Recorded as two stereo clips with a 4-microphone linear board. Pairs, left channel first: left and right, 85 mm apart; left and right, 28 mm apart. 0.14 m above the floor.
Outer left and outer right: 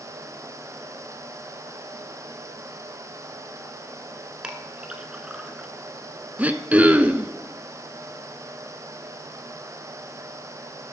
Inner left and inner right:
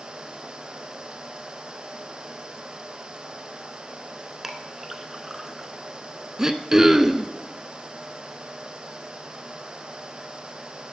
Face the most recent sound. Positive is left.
turn(degrees=-20)  # may be behind; listen again after turning